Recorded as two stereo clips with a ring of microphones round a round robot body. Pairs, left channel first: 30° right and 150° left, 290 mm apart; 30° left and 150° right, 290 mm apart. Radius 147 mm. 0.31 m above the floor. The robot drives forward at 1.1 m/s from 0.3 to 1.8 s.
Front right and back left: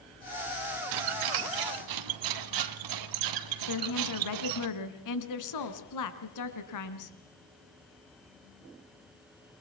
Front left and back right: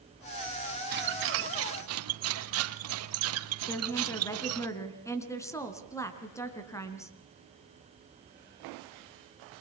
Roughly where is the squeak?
Behind left.